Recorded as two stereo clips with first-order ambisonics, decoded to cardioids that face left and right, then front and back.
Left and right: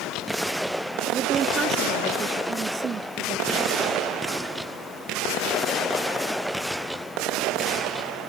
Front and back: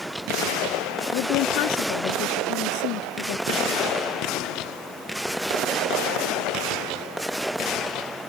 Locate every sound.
1.1 s a woman speaking: 25° right